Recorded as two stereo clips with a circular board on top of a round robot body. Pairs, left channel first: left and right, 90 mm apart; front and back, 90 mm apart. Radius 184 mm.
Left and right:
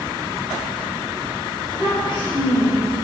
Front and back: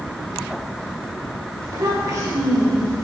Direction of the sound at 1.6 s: 125° left.